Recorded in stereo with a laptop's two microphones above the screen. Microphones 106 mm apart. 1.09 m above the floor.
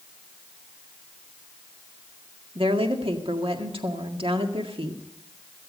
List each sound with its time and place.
2.5 s a woman speaking: 60° right (ahead or behind), 1.8 m